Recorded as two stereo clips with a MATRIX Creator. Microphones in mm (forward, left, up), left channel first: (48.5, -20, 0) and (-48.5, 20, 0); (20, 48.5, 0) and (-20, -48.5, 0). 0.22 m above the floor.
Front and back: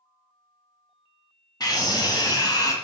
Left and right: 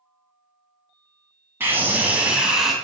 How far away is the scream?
About 2 m.